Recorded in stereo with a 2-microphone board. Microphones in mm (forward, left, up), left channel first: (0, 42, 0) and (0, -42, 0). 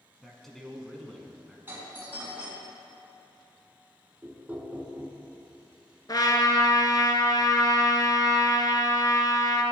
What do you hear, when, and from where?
0.2 s a man speaking: 5° left (ahead or behind), 1.1 m
1.7 s a doorbell: 25° right (ahead or behind), 1.7 m
4.2 s knocking: 15° right (ahead or behind), 1.0 m
6.1 s a trumpet: 45° left (ahead or behind), 0.7 m